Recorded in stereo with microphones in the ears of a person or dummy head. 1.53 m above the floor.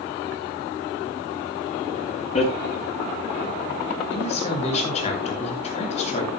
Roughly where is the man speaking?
Left.